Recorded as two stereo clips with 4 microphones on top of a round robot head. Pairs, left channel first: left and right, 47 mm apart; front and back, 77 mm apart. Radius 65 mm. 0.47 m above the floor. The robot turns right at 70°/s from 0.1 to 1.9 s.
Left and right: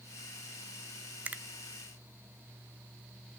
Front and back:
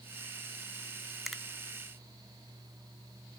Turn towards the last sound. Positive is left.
turn(degrees=-50)